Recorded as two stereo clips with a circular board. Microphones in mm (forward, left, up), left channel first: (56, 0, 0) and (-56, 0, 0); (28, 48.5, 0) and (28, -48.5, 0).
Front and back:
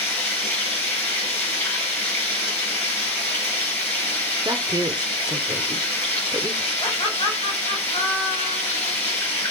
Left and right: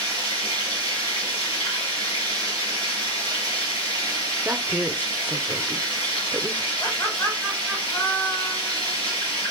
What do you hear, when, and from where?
0.0 s running water: 70° left, 6 m
4.5 s a woman speaking: 155° right, 1.0 m
6.8 s laughter: 35° left, 3 m